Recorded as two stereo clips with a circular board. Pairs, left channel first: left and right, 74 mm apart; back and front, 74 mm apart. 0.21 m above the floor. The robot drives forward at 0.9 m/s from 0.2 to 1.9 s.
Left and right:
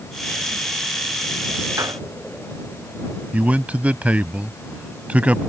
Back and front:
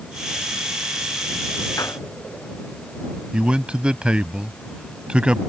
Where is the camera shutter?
No camera shutter in this recording.